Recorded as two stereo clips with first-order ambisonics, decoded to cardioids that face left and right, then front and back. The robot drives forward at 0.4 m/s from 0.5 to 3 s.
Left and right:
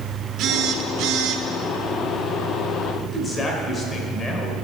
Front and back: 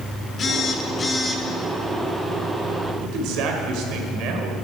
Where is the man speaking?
160° left, 1.9 m.